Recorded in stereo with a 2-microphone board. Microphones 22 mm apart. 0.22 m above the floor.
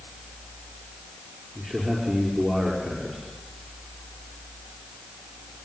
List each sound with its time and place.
1.6 s a man speaking: 45° right (ahead or behind), 5 m